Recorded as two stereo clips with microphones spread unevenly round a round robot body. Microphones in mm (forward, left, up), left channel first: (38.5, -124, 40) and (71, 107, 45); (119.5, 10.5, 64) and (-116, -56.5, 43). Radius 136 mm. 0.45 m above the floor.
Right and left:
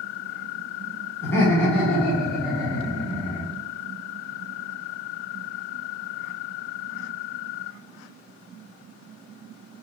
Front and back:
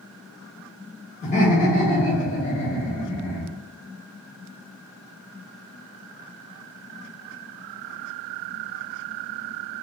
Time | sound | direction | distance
1.2 | laughter | 30° right | 1.2 m